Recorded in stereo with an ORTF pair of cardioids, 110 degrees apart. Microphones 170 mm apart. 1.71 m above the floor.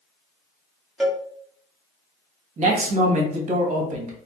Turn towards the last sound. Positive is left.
turn(degrees=-45)